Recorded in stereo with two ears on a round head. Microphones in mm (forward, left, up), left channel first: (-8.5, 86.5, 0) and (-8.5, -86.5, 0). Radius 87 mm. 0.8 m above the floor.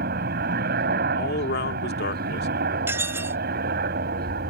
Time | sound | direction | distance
0.0 | a helicopter | 50° right (ahead or behind) | ?
1.2 | a man speaking | 55° left (ahead or behind) | ?
2.9 | dishes clattering | 15° right (ahead or behind) | ?